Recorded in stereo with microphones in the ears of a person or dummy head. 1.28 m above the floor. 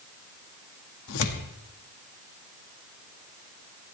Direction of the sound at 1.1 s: 80° left.